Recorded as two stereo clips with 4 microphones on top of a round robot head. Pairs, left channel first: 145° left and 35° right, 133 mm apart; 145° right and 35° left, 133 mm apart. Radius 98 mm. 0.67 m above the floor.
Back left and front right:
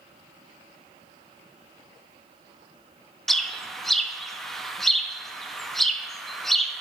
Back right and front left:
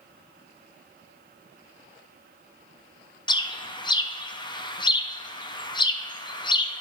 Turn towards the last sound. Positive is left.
turn(degrees=-125)